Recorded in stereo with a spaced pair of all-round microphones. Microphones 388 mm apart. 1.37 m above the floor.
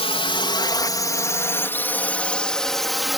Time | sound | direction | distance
0.0 | a drone | 15° left (ahead or behind) | ?